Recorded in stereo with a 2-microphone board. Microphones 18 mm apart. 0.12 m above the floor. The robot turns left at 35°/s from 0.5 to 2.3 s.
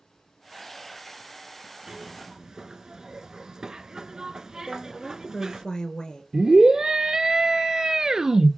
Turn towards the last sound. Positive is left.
turn(degrees=-45)  # may be behind; listen again after turning